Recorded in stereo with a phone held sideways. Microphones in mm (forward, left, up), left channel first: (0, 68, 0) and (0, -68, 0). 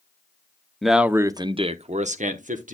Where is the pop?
I don't hear a pop.